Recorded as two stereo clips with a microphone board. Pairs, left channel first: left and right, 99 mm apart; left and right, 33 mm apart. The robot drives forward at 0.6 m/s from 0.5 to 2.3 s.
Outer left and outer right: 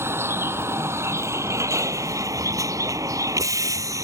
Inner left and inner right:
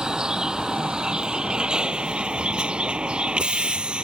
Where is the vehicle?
25° right (ahead or behind); by 4.0 s 35° right (ahead or behind).